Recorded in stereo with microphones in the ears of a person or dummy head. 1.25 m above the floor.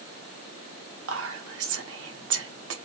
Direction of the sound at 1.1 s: 80° right.